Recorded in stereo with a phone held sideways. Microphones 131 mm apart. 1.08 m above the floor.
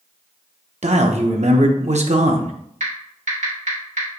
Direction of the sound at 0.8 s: 60° right (ahead or behind).